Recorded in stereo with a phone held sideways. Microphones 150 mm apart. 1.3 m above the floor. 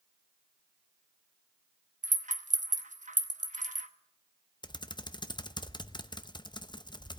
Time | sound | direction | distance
2.0 | a rattle | 55° right (ahead or behind) | 1.0 m
4.6 | typing on a keyboard | 30° left (ahead or behind) | 0.5 m